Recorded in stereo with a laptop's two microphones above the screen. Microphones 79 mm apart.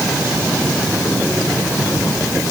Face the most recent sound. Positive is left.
No sound to turn to.